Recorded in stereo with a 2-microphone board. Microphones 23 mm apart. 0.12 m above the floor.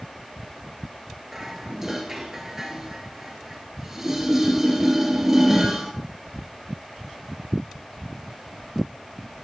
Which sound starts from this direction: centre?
Dishes clattering, at 1.3 s.